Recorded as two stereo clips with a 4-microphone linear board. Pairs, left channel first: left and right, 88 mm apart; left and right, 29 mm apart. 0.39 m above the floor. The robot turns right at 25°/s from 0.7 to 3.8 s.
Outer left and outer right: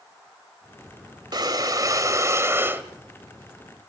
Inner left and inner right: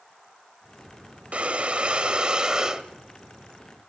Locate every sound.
1.3 s breathing: 65° right, 1.1 m; by 2.8 s 30° right, 1.1 m